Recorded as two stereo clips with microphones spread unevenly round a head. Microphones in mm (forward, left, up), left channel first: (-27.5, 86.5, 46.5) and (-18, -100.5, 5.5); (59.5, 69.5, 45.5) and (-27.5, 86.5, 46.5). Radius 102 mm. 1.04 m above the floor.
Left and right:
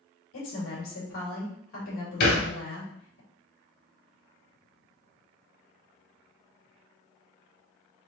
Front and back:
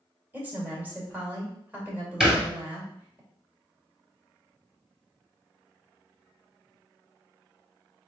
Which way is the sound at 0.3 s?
100° left.